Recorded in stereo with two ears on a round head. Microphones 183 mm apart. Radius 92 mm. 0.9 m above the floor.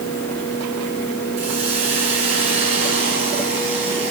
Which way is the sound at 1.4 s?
30° right (ahead or behind).